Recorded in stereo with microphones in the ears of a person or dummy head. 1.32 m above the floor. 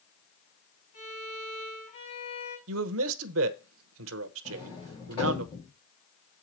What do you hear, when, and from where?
0.9 s a violin: 40° left (ahead or behind), 5 m
2.7 s a man speaking: 80° right, 0.9 m
4.5 s a sliding door: 25° left (ahead or behind), 3 m